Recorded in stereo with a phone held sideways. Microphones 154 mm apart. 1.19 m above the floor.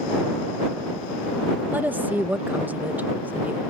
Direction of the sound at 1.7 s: 10° right (ahead or behind).